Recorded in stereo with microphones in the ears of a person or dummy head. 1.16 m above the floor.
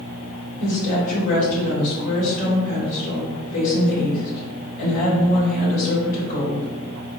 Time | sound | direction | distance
0.6 | a woman speaking | 45° left (ahead or behind) | 1.6 m